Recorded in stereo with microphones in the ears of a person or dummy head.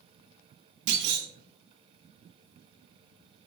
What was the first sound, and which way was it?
A clunk, 55° right (ahead or behind).